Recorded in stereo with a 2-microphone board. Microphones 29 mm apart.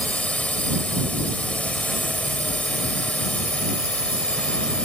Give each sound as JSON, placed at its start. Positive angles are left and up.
{"t": 0.0, "sound": "a drone", "side_deg": 50}